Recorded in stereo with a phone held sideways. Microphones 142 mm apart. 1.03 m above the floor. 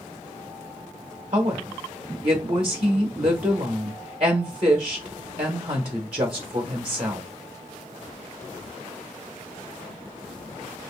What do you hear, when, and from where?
1.3 s a woman speaking: 40° right (ahead or behind), 0.9 m